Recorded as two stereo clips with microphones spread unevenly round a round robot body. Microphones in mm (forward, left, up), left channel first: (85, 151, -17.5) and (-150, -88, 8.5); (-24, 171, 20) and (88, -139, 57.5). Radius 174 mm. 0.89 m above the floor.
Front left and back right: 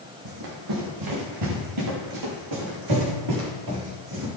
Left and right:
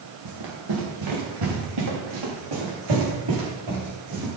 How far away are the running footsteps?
About 4 m.